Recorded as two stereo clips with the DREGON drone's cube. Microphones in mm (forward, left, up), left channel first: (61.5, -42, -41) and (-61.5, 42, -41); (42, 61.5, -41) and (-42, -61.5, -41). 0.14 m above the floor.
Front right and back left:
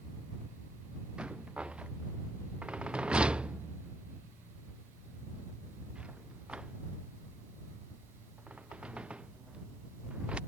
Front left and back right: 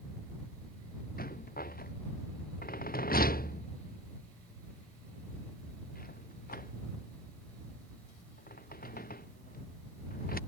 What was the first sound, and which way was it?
A rattle, 60° left.